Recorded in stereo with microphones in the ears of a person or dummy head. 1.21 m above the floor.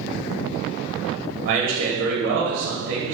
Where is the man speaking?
45° right (ahead or behind), 0.8 m.